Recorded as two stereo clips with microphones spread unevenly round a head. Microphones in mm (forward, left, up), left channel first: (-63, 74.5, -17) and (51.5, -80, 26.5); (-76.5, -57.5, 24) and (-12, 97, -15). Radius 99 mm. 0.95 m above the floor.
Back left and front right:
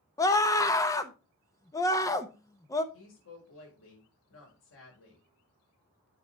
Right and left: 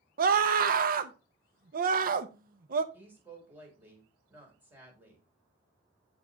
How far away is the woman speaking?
About 4.5 m.